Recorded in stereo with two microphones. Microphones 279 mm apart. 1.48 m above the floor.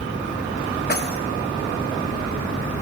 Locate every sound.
0.9 s keys jangling: 35° left (ahead or behind), 1.8 m